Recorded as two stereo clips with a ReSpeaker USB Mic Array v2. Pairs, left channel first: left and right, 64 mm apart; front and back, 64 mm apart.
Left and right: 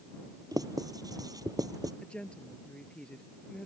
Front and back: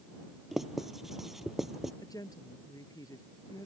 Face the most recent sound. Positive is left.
turn(degrees=15)